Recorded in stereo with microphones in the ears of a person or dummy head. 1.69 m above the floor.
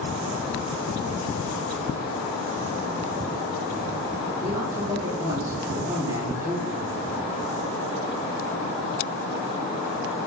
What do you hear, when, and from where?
4.4 s a man speaking: 15° right (ahead or behind), 2.5 m